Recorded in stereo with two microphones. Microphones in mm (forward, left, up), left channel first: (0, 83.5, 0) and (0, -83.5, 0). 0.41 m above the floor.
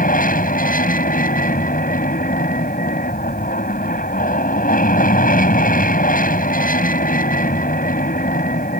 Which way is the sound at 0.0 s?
55° left (ahead or behind).